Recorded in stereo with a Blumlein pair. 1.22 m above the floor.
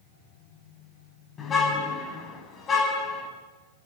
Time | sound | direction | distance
1.4 | a car horn | 20° left | 5.5 m